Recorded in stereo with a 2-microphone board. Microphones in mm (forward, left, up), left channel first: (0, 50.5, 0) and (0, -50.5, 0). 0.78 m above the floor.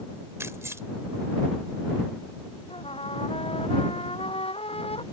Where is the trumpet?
75° left (ahead or behind).